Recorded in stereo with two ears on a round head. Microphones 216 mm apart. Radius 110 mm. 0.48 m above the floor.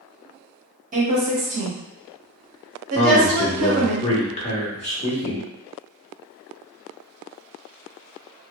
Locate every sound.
0.9 s a woman speaking: 35° right (ahead or behind), 0.9 m
3.0 s a man speaking: 30° left (ahead or behind), 0.7 m